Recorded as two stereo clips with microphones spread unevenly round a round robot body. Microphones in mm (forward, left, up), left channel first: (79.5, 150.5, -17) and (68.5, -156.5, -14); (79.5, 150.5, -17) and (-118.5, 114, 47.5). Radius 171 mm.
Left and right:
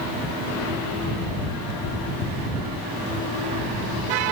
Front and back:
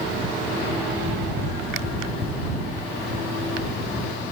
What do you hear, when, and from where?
Only background noise.